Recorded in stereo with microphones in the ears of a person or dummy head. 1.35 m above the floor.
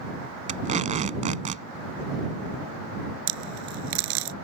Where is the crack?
75° right (ahead or behind).